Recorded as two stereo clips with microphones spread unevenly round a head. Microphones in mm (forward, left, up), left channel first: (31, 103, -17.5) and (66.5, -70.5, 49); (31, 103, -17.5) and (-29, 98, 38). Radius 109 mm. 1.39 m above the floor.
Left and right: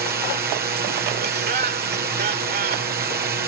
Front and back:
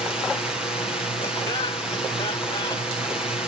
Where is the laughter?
45° right.